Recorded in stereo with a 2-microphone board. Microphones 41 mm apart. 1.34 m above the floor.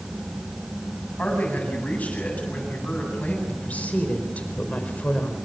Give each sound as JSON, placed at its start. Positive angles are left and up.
{"t": 1.2, "sound": "a man speaking", "side_deg": 35, "distance_m": 9.0}
{"t": 3.5, "sound": "a woman speaking", "side_deg": 35, "distance_m": 4.5}